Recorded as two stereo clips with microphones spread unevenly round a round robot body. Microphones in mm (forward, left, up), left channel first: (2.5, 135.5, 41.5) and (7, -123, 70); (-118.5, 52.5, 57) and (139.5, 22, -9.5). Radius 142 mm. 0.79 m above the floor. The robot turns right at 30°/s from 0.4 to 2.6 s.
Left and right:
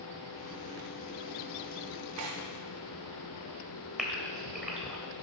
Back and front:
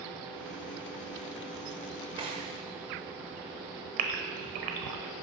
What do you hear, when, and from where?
2.2 s tearing paper: 90° right, 0.7 m; by 2.5 s 80° right, 0.7 m
4.0 s a gasp: 5° right, 1.0 m